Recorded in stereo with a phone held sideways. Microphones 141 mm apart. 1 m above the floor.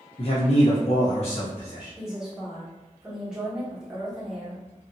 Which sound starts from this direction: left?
A man speaking, at 0.2 s.